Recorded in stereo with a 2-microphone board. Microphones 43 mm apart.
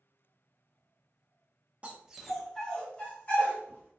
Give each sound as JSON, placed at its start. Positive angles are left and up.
{"t": 1.8, "sound": "a dog barking", "side_deg": -30, "distance_m": 0.5}